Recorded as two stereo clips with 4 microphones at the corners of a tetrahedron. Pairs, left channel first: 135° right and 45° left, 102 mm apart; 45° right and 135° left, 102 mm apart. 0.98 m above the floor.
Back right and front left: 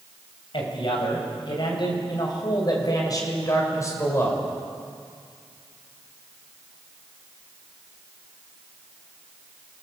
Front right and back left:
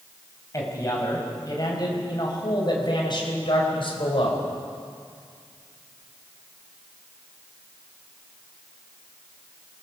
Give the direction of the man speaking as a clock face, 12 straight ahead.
3 o'clock.